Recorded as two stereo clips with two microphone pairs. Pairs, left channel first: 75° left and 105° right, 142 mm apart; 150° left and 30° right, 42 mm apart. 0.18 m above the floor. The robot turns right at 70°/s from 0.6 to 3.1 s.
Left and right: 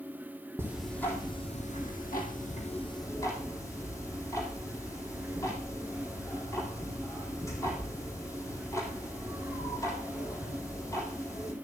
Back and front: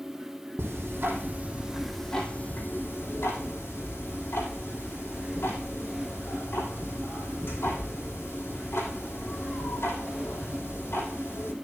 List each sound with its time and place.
0.6 s ticking: 30° right, 3 m; by 11.5 s 145° left, 3 m